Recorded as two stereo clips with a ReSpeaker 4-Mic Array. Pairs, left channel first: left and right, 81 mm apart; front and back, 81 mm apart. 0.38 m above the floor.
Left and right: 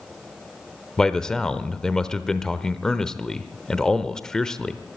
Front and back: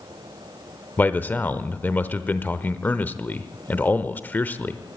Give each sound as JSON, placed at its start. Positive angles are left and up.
{"t": 1.0, "sound": "a man speaking", "azimuth_deg": 20, "distance_m": 0.9}